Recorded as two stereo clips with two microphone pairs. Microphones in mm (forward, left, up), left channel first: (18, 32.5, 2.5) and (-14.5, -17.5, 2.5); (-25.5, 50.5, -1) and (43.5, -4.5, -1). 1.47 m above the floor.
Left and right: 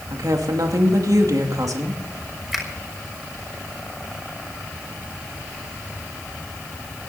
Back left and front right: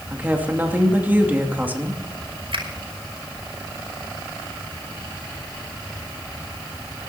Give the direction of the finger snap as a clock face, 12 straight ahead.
1 o'clock.